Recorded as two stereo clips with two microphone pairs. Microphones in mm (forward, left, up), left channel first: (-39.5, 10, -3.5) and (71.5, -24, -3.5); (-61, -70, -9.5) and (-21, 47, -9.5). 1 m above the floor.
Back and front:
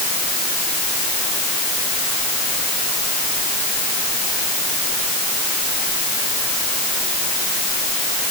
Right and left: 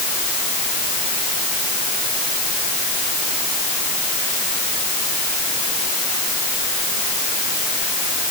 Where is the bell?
I don't hear a bell.